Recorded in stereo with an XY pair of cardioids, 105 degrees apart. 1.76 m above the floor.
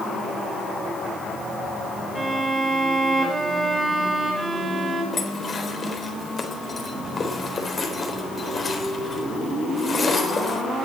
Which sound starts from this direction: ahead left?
Dishes clattering, at 5.1 s.